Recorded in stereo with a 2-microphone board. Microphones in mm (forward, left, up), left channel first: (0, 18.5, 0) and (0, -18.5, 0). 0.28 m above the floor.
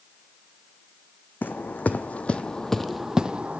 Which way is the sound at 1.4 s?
60° left (ahead or behind).